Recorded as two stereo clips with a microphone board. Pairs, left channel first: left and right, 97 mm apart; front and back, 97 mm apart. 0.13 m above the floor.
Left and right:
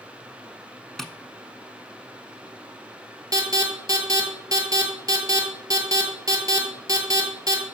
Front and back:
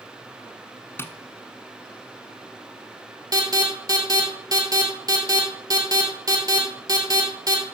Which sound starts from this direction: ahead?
Tapping, at 1.0 s.